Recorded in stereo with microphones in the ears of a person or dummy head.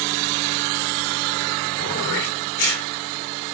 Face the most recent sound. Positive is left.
turn(degrees=70)  # may be behind; listen again after turning